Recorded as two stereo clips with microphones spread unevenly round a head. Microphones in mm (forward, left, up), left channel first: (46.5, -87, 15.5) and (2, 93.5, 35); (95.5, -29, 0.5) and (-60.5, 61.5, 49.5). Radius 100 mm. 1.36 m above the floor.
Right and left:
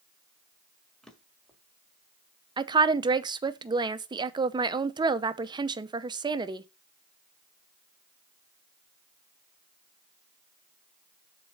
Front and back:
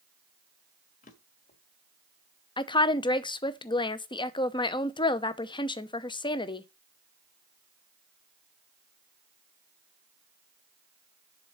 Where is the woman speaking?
35° left, 0.8 m.